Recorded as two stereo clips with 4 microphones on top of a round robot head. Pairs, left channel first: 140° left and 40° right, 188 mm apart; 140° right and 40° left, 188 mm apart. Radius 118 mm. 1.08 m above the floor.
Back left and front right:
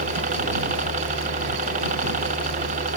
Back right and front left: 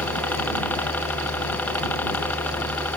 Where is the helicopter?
65° right.